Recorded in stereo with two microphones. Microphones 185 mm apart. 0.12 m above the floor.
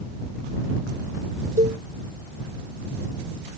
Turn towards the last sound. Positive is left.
turn(degrees=-45)  # may be behind; listen again after turning